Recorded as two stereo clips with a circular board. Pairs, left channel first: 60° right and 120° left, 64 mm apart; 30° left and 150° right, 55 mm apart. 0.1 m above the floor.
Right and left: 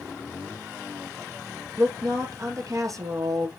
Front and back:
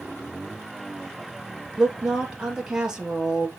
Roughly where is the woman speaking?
Behind left.